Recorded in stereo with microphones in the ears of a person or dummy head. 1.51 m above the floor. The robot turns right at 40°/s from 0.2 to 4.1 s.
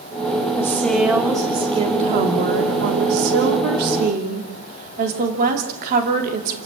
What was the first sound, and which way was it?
A woman speaking, 165° left.